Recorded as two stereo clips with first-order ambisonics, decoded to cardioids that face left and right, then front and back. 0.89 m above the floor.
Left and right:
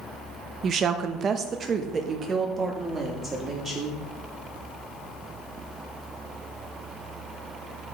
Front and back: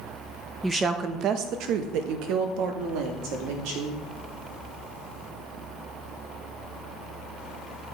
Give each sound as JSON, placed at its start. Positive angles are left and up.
{"t": 0.6, "sound": "a woman speaking", "azimuth_deg": -105, "distance_m": 0.5}